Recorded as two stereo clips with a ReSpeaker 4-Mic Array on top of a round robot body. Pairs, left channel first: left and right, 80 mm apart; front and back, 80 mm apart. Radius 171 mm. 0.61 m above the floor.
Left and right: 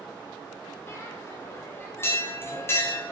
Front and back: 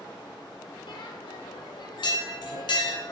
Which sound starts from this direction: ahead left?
A bell, at 0.9 s.